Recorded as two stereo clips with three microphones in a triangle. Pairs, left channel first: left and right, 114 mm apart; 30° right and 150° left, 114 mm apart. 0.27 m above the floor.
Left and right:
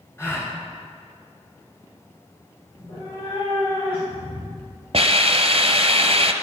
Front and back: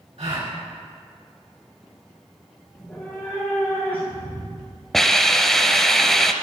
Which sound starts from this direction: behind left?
A gasp, at 0.2 s.